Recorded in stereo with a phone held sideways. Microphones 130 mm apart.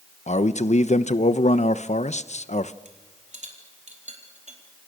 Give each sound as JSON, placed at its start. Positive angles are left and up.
{"t": 0.3, "sound": "a man speaking", "side_deg": 65, "distance_m": 1.1}
{"t": 2.9, "sound": "a rattle", "side_deg": -65, "distance_m": 4.0}